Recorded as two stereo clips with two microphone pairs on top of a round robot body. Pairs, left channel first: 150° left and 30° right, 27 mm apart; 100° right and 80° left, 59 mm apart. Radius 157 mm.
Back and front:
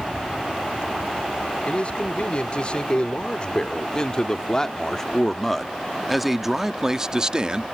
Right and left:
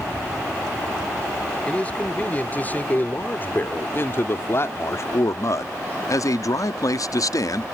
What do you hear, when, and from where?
1.7 s a man speaking: 165° right; by 7.7 s 85° right